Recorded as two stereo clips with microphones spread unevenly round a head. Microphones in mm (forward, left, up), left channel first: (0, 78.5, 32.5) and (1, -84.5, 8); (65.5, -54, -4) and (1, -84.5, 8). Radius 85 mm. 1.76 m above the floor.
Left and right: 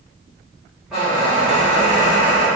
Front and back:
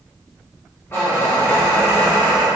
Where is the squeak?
20° left, 0.9 m.